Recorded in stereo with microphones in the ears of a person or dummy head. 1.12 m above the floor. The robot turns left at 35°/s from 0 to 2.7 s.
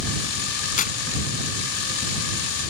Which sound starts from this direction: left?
Tearing paper, at 0.8 s.